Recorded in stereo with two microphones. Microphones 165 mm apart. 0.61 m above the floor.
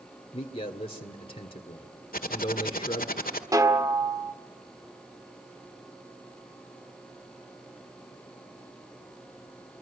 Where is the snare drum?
20° right (ahead or behind), 1.6 m.